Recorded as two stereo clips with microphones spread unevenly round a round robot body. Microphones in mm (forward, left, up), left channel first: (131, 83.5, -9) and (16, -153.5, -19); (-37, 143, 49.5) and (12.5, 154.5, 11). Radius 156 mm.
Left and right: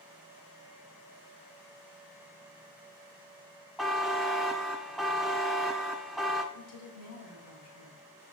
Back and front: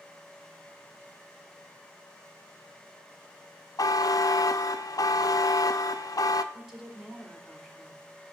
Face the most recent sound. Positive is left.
turn(degrees=80)